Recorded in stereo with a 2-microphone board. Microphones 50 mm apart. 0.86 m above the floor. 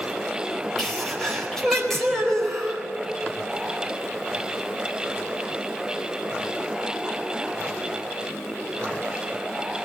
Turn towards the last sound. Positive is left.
turn(degrees=10)  # may be behind; listen again after turning